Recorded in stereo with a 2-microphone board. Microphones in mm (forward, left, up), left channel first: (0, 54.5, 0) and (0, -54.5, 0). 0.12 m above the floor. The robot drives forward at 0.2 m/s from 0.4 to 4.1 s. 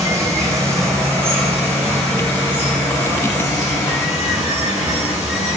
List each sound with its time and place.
0.0 s running water: 25° right (ahead or behind), 0.9 m; by 5.6 s 15° right (ahead or behind), 1.6 m